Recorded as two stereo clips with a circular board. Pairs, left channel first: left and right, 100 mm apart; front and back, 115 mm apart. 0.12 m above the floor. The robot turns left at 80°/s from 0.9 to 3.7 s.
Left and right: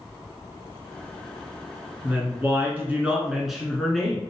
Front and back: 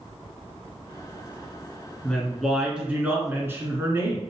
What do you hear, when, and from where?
2.0 s a woman speaking: 60° right, 1.1 m; by 4.2 s 170° left, 1.1 m